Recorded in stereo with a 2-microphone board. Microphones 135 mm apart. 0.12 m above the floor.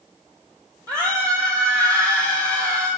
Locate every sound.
0.9 s a scream: 25° right (ahead or behind), 4 m